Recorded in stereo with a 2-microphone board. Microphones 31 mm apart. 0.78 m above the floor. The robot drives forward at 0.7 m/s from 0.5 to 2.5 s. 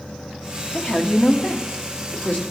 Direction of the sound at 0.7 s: 45° left (ahead or behind).